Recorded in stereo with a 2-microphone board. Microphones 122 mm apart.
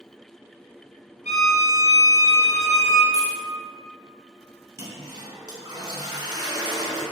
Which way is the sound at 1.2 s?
80° left.